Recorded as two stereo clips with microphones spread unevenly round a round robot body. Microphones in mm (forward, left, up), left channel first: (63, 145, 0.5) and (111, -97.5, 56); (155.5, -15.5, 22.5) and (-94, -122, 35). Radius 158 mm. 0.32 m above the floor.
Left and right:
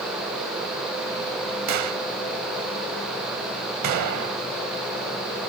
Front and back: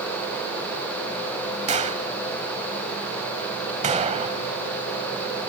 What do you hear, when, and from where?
1.7 s a gunshot: 95° right